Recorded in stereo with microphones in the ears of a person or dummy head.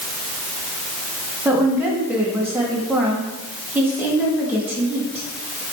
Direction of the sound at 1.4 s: 10° right (ahead or behind).